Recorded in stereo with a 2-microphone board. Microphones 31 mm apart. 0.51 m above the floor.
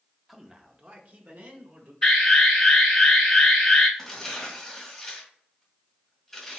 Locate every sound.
0.3 s a man speaking: 5° right (ahead or behind), 0.7 m; by 1.9 s 65° right (ahead or behind), 1.8 m
2.0 s an alarm: 15° left (ahead or behind), 2.5 m
4.0 s tearing paper: 10° left (ahead or behind), 1.6 m